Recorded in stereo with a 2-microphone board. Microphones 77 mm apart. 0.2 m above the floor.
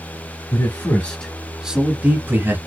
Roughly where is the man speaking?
Left.